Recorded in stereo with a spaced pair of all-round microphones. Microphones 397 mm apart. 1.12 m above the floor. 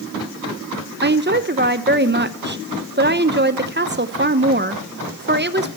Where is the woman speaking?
30° right (ahead or behind), 0.8 m.